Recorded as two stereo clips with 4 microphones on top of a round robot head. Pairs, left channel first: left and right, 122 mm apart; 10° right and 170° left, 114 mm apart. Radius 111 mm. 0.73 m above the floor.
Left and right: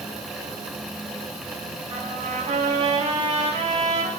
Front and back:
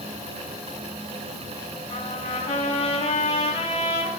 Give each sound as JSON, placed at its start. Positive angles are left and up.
{"t": 1.9, "sound": "a trumpet", "azimuth_deg": -45, "distance_m": 7.0}